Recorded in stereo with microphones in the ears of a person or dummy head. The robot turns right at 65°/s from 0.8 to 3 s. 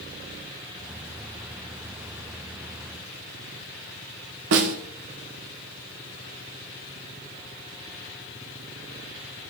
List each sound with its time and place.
4.5 s a snare drum: 65° right (ahead or behind), 0.9 m